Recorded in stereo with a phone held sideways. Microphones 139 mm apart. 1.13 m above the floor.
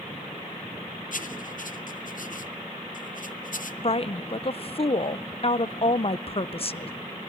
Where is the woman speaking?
45° left (ahead or behind), 0.5 m.